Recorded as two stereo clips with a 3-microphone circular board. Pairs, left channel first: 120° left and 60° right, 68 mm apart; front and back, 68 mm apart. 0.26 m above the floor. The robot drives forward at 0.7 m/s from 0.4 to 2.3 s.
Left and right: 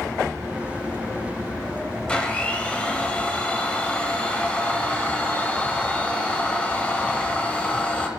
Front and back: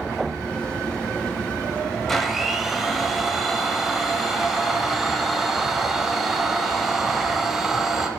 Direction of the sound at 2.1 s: 80° left.